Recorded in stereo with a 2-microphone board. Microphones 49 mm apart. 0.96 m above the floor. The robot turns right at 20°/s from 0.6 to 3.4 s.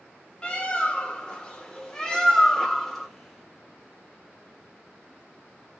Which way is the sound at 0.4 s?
25° left (ahead or behind).